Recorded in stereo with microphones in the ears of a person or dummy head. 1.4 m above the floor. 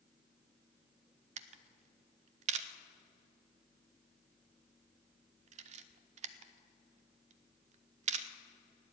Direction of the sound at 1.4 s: 40° right (ahead or behind).